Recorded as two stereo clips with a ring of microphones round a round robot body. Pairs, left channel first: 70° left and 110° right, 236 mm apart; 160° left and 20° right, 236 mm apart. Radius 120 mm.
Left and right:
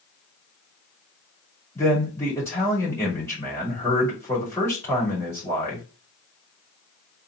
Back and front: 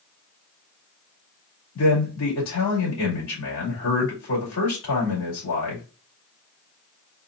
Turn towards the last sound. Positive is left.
turn(degrees=145)